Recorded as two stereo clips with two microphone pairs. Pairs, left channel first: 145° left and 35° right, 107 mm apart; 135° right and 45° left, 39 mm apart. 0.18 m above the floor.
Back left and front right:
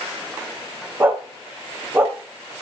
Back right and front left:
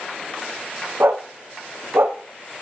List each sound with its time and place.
1.0 s a dog barking: 35° left, 3 m